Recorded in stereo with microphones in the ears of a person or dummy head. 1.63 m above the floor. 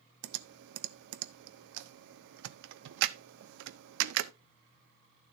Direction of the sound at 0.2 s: 65° right (ahead or behind).